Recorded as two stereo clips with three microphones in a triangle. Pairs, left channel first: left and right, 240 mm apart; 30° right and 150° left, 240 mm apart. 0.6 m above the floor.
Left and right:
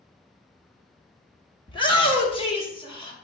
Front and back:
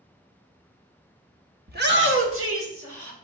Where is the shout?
145° left, 0.7 m; by 3.1 s 155° left, 1.8 m.